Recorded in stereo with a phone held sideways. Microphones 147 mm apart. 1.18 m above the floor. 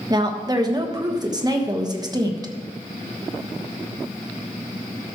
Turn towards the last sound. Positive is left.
turn(degrees=-25)  # may be behind; listen again after turning